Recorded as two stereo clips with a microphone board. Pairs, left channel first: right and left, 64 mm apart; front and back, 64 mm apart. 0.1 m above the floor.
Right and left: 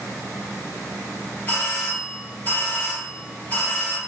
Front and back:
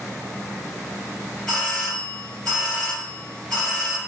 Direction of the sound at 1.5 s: 80° right.